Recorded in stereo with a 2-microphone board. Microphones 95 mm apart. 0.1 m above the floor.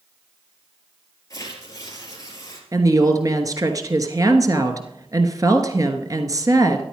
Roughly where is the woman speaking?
Right.